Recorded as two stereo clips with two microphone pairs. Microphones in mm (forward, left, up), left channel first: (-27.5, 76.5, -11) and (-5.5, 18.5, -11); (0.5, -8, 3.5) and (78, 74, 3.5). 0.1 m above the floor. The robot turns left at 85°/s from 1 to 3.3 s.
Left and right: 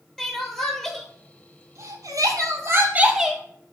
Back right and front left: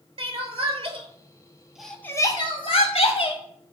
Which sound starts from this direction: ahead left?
Crying, at 0.2 s.